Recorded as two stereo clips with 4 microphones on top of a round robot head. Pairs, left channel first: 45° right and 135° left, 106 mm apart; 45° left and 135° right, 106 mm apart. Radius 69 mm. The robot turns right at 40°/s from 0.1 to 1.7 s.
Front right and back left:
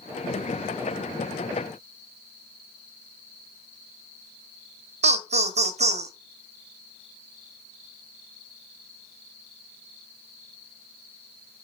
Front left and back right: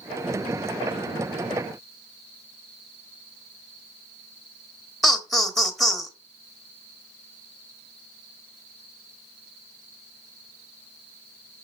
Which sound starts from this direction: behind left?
Laughter, at 5.0 s.